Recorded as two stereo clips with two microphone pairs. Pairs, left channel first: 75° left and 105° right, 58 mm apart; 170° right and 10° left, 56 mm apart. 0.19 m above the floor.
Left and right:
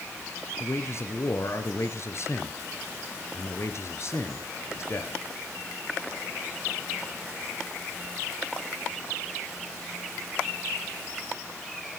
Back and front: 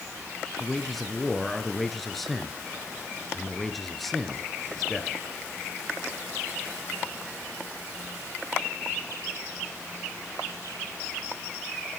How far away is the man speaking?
About 2.5 m.